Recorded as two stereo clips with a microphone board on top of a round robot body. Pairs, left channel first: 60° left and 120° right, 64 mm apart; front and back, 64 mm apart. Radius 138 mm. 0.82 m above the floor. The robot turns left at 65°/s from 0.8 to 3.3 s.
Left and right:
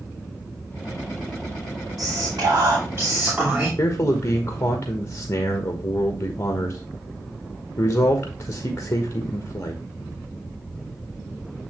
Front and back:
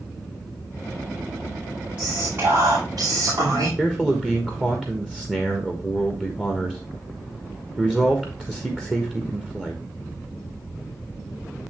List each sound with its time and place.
2.0 s whispering: 110° right, 3 m; by 3.7 s 165° left, 3 m
3.8 s a man speaking: 105° left, 1.5 m